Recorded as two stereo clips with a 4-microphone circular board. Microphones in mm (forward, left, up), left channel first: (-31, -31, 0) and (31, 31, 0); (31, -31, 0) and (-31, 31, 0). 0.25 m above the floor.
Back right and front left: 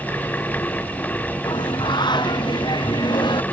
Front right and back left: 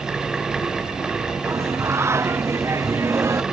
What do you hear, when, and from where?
1.4 s singing: 165° right